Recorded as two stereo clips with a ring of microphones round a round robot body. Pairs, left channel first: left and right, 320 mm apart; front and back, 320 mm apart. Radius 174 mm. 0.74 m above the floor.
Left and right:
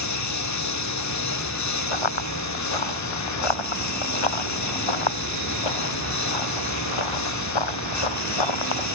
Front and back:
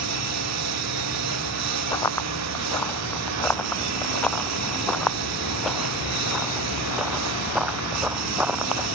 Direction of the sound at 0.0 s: 130° left.